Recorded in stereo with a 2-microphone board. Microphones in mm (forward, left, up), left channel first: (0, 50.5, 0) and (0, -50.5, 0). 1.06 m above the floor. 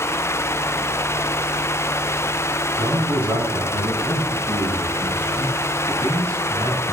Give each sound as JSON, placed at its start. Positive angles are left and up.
{"t": 2.8, "sound": "a man speaking", "side_deg": -10, "distance_m": 10.0}